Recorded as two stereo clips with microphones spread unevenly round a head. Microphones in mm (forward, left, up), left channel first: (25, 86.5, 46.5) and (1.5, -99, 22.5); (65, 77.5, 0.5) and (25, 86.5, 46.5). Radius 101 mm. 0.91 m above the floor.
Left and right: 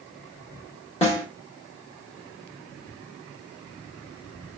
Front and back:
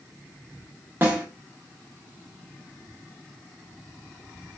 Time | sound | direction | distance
1.0 | a snare drum | 145° left | 1.3 m